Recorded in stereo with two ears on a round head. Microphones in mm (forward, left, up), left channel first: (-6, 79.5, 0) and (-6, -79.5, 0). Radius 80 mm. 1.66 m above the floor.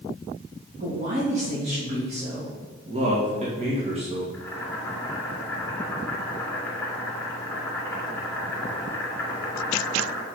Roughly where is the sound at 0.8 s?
Right.